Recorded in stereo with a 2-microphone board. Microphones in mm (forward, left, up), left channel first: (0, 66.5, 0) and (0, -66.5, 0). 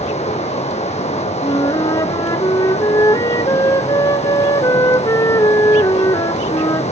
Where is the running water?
55° left (ahead or behind), 2.5 m.